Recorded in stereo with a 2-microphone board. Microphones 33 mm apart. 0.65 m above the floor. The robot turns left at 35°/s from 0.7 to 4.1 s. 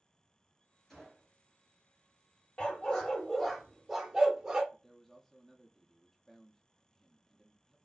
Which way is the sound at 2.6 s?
40° left.